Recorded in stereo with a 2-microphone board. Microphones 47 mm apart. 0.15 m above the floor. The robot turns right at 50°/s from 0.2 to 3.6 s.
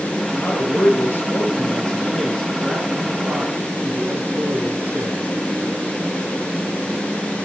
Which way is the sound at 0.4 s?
70° left.